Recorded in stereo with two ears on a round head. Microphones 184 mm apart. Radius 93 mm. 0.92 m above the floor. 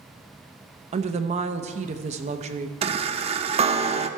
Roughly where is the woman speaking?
Right.